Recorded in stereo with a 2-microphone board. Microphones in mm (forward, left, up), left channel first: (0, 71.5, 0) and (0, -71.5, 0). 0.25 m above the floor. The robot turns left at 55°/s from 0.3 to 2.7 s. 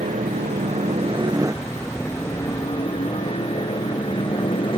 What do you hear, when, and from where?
0.0 s a helicopter: 90° right; by 4.8 s 140° left